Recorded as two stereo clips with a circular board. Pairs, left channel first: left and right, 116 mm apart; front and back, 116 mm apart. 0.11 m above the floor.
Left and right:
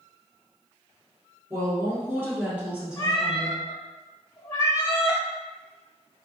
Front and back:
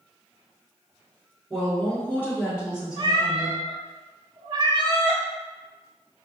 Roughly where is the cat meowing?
Behind left.